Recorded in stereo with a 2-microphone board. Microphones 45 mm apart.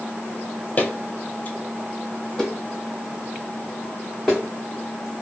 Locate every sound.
0.8 s footsteps: 35° left (ahead or behind), 0.6 m; by 4.4 s centre (ahead or behind), 2 m